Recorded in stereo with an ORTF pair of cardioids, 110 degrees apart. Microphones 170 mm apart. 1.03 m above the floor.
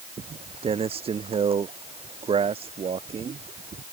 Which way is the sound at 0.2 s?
35° right.